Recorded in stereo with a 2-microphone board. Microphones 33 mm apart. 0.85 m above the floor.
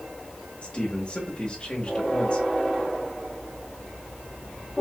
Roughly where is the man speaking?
Left.